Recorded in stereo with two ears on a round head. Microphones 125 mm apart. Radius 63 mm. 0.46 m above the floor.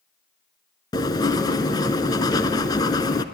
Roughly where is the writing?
Left.